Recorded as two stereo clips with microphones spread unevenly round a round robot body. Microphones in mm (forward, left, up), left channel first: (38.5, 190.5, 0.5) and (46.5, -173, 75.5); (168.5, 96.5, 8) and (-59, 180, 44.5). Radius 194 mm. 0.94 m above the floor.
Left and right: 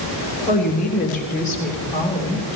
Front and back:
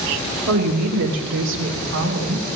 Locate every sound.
0.5 s a woman speaking: 160° left, 3 m